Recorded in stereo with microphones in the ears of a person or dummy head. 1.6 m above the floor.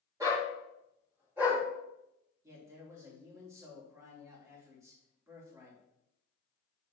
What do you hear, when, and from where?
0.2 s a dog barking: 20° right (ahead or behind), 3 m; by 1.6 s 5° right (ahead or behind), 3.5 m
2.4 s a man speaking: 20° right (ahead or behind), 2.5 m